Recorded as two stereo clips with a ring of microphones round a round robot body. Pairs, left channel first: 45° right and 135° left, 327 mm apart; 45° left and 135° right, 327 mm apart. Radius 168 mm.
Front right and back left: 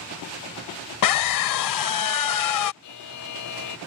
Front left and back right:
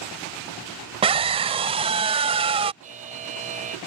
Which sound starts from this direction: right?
A buzzer, at 2.8 s.